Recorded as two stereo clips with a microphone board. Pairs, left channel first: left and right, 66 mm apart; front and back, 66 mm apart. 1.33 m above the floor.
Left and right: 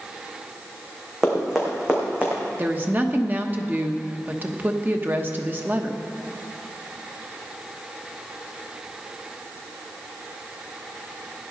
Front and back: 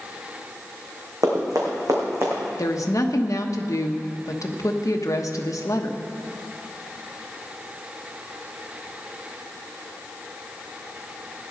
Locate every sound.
1.2 s running footsteps: straight behind, 4 m; by 2.4 s 155° right, 3.5 m
2.6 s a woman speaking: 30° right, 1.1 m